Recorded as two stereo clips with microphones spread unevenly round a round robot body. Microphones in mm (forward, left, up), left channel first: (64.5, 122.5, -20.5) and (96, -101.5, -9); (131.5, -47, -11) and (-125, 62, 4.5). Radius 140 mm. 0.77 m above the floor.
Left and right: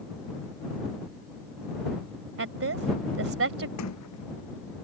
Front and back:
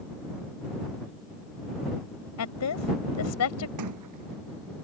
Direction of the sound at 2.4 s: 60° right.